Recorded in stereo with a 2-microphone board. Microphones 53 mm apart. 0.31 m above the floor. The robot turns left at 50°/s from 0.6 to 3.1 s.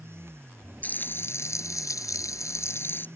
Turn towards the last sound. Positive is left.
turn(degrees=35)